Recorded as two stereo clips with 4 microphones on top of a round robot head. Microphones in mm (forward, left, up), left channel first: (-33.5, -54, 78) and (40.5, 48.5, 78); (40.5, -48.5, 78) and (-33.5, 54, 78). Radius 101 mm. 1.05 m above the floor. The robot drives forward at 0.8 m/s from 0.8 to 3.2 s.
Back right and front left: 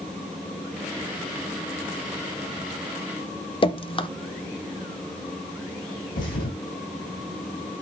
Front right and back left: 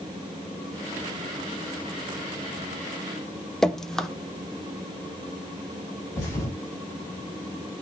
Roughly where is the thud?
Behind right.